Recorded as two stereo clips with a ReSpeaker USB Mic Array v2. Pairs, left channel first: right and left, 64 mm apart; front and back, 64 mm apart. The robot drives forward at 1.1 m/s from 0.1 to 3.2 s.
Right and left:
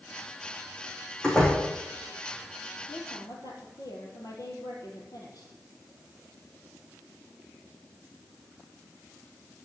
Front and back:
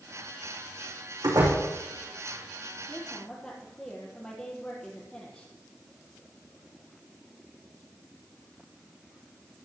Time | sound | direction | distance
1.2 | a door slam | 170° right | 6 m
2.9 | a woman speaking | 75° right | 4.5 m